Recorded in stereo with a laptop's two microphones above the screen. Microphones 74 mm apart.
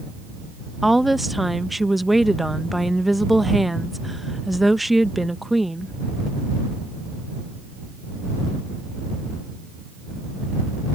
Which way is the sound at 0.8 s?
Centre (ahead or behind).